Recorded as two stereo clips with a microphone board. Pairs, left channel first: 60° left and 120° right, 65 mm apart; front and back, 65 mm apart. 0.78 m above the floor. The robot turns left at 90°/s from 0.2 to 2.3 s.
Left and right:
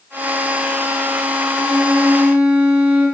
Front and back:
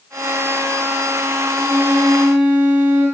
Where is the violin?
95° right, 1.0 m; by 3.0 s 165° right, 1.0 m.